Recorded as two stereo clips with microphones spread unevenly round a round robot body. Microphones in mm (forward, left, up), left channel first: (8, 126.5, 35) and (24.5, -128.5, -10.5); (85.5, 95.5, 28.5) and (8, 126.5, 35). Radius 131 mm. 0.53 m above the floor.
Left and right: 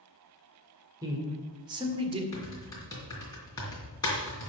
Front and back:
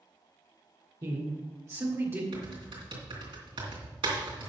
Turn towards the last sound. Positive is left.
turn(degrees=170)